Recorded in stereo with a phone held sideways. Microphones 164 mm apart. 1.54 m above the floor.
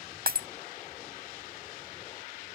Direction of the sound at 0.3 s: 70° right (ahead or behind).